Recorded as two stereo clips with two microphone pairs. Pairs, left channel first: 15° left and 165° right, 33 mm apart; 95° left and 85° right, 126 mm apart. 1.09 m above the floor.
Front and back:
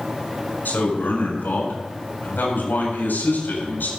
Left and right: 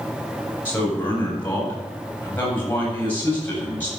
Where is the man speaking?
20° left, 8 m.